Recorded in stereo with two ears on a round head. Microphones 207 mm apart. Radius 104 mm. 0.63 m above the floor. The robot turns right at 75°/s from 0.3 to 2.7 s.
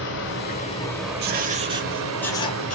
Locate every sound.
0.0 s running water: 125° left, 1.3 m; by 2.8 s 55° right, 1.3 m
1.2 s writing: 65° right, 0.6 m; by 2.8 s 45° left, 0.6 m